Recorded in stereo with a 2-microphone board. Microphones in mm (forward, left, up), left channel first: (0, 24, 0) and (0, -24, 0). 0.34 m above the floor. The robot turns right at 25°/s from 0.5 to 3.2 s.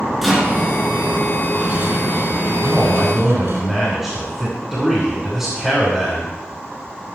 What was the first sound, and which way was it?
A rattle, straight behind.